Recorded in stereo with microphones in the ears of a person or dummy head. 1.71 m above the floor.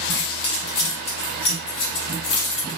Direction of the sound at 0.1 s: 30° left (ahead or behind).